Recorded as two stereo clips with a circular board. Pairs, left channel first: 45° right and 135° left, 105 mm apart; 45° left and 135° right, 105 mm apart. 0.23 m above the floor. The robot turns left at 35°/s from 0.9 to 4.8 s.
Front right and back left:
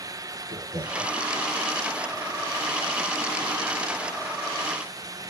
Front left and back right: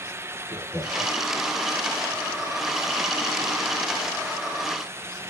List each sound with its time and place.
0.5 s laughter: 135° left, 4.5 m; by 1.2 s 125° left, 4.5 m